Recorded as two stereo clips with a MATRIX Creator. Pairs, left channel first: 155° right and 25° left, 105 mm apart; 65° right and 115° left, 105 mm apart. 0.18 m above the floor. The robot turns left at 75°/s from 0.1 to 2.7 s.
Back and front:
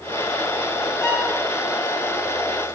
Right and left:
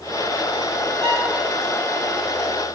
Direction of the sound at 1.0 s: 145° left.